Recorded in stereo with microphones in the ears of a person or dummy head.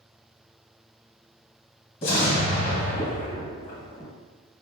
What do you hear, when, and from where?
2.0 s an explosion: 25° left (ahead or behind), 1.0 m